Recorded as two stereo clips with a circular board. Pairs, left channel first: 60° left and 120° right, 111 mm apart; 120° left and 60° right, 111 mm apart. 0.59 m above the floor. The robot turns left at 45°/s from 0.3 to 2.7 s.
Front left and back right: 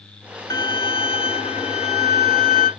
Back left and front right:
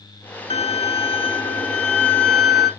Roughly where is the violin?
Behind left.